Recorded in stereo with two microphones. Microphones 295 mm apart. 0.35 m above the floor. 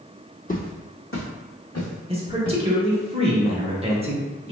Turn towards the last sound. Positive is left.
turn(degrees=-20)  # may be behind; listen again after turning